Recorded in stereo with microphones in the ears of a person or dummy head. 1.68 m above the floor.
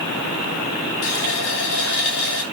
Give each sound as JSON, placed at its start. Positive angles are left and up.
{"t": 1.0, "sound": "a running tap", "side_deg": 60, "distance_m": 3.0}